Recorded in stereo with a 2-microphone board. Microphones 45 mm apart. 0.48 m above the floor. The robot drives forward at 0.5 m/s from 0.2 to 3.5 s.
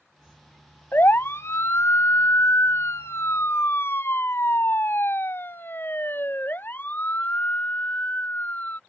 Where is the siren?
50° left (ahead or behind); by 8.8 s 40° left (ahead or behind).